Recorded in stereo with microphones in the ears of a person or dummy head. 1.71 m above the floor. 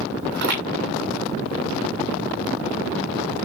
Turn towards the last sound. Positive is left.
turn(degrees=-65)  # may be behind; listen again after turning